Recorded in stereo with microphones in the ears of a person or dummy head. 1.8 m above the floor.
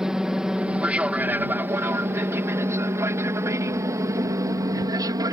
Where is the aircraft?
5° right (ahead or behind); by 5.3 s 20° right (ahead or behind).